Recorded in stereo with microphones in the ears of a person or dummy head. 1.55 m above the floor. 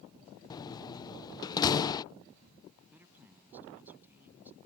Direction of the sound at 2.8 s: 10° right (ahead or behind).